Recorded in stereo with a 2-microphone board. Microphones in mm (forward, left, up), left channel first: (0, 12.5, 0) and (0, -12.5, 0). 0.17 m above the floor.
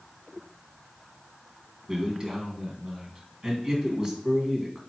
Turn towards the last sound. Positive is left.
turn(degrees=-25)  # may be behind; listen again after turning